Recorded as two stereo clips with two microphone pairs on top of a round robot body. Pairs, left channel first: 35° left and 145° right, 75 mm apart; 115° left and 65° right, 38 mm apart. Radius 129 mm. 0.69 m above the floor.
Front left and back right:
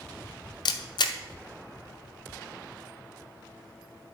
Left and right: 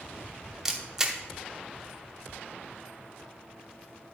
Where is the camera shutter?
15° left, 0.8 m.